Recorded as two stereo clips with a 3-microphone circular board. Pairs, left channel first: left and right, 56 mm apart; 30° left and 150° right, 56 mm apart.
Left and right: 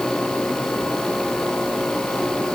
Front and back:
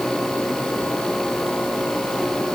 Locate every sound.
Only background noise.